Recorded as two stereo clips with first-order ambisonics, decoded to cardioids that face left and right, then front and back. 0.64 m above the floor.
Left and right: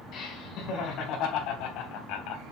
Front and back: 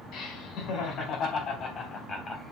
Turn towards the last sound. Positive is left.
turn(degrees=75)